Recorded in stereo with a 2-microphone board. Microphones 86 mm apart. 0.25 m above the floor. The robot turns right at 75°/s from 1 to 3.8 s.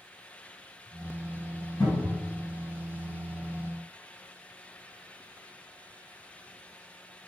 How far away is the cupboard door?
About 1.7 m.